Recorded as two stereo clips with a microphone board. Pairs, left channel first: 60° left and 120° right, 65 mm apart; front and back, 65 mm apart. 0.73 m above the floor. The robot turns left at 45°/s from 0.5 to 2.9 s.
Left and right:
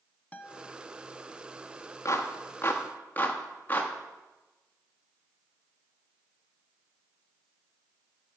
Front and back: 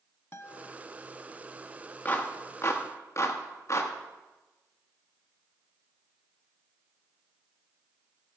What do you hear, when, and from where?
0.3 s a guitar: 10° left, 0.7 m; by 0.7 s straight ahead, 0.7 m
2.0 s a clap: 50° left, 1.1 m; by 3.9 s 10° left, 1.1 m